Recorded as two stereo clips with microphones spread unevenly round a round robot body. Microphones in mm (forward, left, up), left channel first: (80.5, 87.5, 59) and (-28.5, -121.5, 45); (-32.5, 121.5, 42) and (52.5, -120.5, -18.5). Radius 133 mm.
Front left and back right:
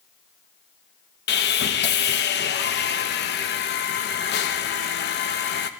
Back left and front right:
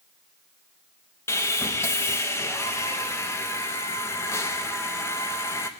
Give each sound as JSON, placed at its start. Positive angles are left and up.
{"t": 1.3, "sound": "sawing", "azimuth_deg": 20, "distance_m": 0.7}